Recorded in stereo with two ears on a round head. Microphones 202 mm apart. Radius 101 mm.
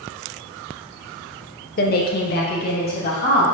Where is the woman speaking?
40° left (ahead or behind), 0.5 m; by 3.5 s 45° left (ahead or behind), 1.4 m.